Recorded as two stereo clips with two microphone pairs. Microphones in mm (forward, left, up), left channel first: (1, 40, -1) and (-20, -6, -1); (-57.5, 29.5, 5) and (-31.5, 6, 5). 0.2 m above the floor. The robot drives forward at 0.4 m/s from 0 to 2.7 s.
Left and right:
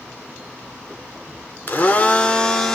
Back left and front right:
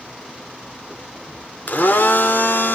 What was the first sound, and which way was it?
A blender, 110° left.